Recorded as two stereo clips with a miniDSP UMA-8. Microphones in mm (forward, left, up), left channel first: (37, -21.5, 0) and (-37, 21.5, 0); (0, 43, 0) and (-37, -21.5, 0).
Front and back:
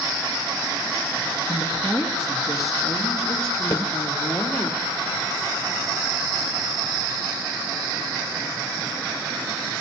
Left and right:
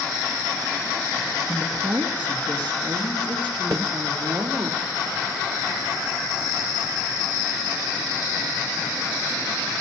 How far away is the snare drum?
About 2 m.